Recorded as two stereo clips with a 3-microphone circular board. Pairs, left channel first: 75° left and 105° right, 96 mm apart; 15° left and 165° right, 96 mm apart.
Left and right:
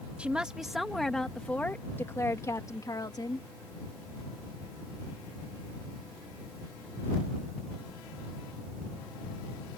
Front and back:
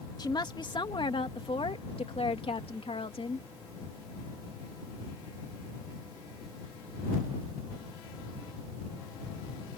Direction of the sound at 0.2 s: 30° right.